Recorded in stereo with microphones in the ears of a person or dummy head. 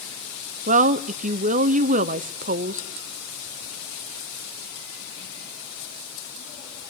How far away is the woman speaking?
About 0.7 m.